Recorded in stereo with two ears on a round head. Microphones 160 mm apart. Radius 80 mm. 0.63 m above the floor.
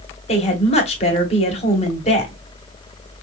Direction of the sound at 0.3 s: 35° left (ahead or behind).